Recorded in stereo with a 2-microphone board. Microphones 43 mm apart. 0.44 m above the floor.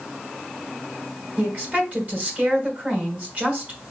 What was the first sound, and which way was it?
A woman speaking, 40° right (ahead or behind).